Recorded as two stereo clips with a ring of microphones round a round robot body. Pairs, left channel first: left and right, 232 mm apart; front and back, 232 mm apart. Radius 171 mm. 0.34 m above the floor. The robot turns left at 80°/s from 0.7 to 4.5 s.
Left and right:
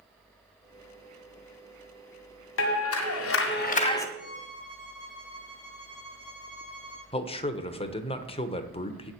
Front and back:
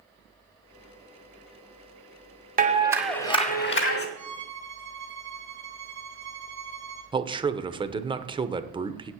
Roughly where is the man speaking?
Behind left.